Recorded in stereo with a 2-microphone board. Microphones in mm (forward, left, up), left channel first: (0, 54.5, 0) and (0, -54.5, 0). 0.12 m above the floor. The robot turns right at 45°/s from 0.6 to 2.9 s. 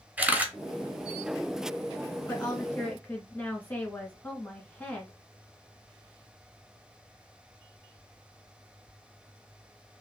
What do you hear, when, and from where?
0.2 s a camera shutter: 15° right (ahead or behind), 0.7 m
2.3 s a woman speaking: 20° left (ahead or behind), 1.1 m; by 5.1 s 15° left (ahead or behind), 1.1 m